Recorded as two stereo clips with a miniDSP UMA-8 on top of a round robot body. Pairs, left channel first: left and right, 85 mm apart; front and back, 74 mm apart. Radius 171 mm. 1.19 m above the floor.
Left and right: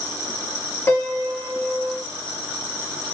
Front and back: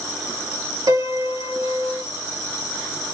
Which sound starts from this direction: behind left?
A piano, at 0.9 s.